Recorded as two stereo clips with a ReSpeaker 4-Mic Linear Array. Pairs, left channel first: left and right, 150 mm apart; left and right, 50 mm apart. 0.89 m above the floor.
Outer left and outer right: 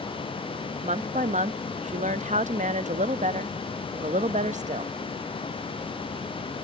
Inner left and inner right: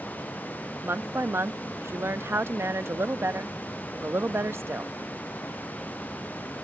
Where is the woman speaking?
55° right (ahead or behind).